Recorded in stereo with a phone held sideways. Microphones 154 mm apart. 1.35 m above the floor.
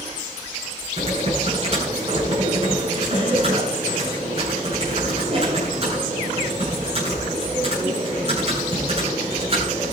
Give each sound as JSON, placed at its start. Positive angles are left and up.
{"t": 1.0, "sound": "typing on a keyboard", "side_deg": -45, "distance_m": 9.5}